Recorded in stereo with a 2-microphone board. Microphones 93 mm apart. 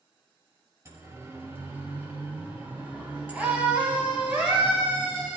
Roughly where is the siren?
Right.